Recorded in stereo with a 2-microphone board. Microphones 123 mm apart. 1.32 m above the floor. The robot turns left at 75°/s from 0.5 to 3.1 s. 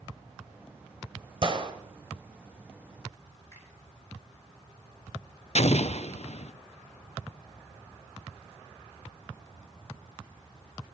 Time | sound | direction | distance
1.4 | a gunshot | 45° right (ahead or behind) | 1.4 m
3.5 | a finger snap | 25° left (ahead or behind) | 8.5 m
5.5 | an explosion | 60° left (ahead or behind) | 0.5 m